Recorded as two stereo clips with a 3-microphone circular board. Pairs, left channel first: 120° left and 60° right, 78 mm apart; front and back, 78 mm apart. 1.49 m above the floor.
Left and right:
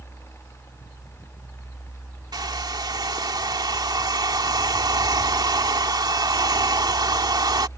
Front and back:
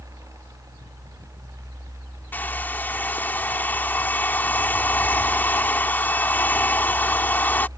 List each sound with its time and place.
2.3 s a hair dryer: 65° right